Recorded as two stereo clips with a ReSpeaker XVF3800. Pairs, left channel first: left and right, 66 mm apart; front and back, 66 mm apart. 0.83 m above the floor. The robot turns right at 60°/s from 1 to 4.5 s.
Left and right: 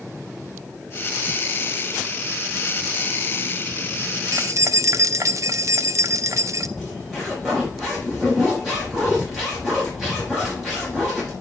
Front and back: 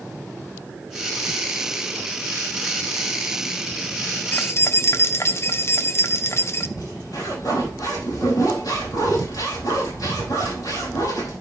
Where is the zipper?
5° right, 5.5 m.